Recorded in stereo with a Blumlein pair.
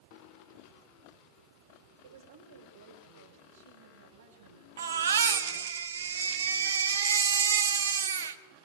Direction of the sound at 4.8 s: 65° right.